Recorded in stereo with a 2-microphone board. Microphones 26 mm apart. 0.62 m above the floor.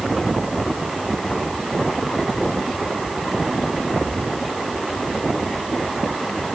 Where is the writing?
I don't hear writing.